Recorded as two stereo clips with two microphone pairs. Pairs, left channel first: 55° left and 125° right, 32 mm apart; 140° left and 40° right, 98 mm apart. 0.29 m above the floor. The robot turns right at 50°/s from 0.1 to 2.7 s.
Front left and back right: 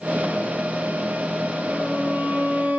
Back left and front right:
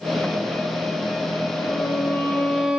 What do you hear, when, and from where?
1.7 s a violin: 165° right, 6 m; by 2.8 s 115° right, 6 m